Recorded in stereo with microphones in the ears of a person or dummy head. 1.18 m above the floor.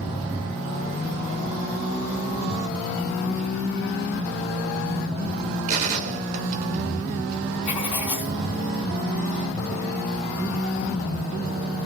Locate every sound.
5.7 s a gunshot: 45° right (ahead or behind), 1.2 m
7.7 s writing: 30° left (ahead or behind), 1.3 m